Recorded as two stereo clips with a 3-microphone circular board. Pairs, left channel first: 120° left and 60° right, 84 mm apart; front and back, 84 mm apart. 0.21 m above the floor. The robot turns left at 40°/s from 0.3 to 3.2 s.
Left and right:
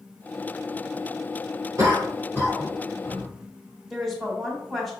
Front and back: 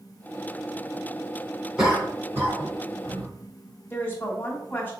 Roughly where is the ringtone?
No ringtone in this recording.